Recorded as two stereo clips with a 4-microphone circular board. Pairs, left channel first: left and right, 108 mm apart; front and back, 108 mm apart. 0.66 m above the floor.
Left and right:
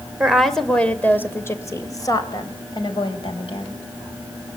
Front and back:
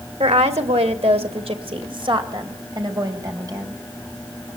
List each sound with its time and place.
0.2 s a woman speaking: 175° right, 2.5 m; by 3.8 s 125° left, 4.5 m